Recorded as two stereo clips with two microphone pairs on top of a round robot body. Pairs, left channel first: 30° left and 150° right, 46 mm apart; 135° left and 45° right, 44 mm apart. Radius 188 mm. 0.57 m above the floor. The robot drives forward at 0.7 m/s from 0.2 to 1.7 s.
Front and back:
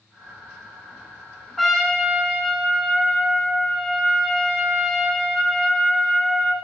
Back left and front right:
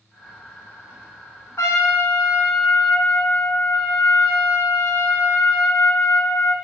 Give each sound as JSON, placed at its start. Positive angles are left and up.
{"t": 1.6, "sound": "a trumpet", "azimuth_deg": 115, "distance_m": 1.5}